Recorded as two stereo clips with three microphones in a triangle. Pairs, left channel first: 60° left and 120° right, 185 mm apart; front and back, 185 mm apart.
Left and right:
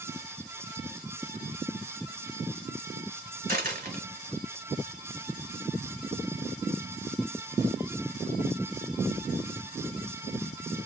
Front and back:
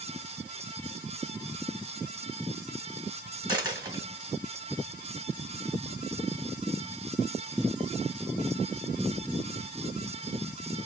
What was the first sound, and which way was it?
A dropped coin, 115° right.